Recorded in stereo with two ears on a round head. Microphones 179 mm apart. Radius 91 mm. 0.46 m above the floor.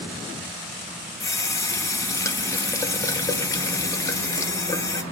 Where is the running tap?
15° left (ahead or behind), 0.7 m.